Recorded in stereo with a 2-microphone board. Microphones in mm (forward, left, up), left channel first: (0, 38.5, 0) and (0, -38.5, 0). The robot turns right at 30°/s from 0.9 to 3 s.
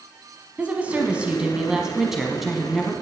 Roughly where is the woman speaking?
Centre.